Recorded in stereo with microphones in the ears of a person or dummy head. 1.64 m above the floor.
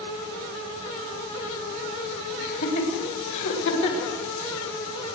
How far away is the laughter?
About 3.5 m.